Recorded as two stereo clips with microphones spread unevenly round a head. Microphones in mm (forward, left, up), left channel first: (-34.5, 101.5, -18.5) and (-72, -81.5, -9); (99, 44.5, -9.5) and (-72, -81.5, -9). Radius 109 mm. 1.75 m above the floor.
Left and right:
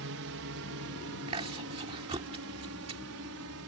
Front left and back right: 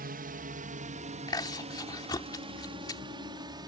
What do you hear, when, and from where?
0.0 s a drone: 95° right; by 3.7 s 70° right
1.3 s chewing: 35° right